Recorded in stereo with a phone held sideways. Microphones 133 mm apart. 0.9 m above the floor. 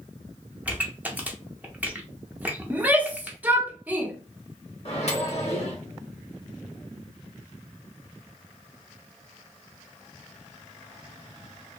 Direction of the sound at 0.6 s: 10° right (ahead or behind).